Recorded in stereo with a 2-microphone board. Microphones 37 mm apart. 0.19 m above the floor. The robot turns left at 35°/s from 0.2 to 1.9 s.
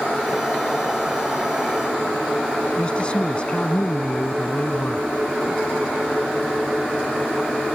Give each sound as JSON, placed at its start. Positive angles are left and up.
{"t": 2.8, "sound": "a man speaking", "side_deg": 30}